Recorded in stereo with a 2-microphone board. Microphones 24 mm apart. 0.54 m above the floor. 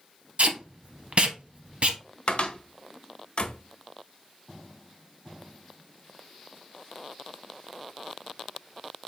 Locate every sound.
0.4 s tape being pulled: 65° right (ahead or behind), 0.6 m
2.3 s a cupboard door: 55° left (ahead or behind), 0.6 m